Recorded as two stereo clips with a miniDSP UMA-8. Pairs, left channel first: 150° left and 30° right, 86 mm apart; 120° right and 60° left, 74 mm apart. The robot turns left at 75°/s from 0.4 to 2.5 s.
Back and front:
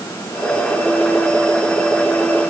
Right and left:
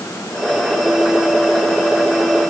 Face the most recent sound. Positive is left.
No sound to turn to.